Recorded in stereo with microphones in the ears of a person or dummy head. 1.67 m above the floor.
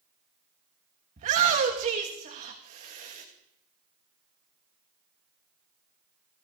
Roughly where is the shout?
Right.